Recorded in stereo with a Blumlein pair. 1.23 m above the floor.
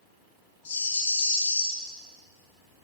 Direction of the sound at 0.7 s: 65° left.